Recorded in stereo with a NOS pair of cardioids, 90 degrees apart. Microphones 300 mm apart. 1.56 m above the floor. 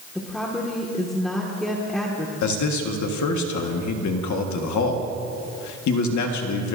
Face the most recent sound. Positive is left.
turn(degrees=70)